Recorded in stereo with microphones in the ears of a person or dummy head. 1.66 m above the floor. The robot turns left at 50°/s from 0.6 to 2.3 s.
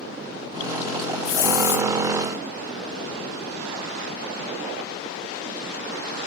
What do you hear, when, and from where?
1.2 s a hiss: 135° left, 0.9 m; by 1.9 s 105° left, 0.9 m